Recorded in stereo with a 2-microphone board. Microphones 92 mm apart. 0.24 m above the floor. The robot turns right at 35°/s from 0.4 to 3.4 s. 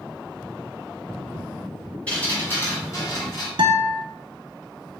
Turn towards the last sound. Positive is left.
turn(degrees=-80)